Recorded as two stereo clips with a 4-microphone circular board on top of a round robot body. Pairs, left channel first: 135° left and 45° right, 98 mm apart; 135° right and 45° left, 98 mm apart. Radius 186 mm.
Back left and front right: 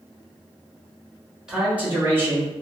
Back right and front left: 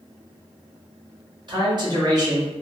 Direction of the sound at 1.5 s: 35° left.